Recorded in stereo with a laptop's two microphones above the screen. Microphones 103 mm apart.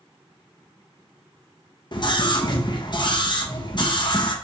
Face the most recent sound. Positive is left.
turn(degrees=50)  # may be behind; listen again after turning